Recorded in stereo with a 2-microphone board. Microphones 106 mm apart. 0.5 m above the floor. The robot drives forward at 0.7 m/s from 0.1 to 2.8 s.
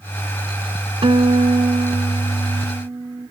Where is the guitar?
55° right (ahead or behind), 0.8 m; by 3.3 s 35° right (ahead or behind), 1.2 m.